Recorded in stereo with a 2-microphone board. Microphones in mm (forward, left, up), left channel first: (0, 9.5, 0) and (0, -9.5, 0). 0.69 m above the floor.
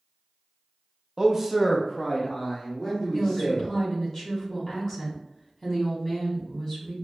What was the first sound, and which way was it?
A man speaking, 25° right (ahead or behind).